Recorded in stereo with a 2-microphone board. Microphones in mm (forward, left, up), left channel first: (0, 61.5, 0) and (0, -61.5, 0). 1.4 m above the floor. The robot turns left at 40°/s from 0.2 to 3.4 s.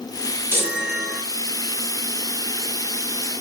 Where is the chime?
20° right (ahead or behind), 4.5 m; by 1.2 s 5° left (ahead or behind), 4.5 m.